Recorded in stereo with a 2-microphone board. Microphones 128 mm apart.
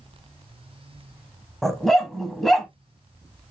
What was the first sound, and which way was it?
A dog barking, centre (ahead or behind).